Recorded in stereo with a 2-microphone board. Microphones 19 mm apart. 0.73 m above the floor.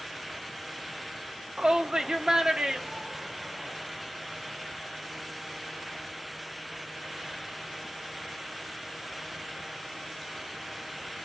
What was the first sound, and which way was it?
A shout, 40° right (ahead or behind).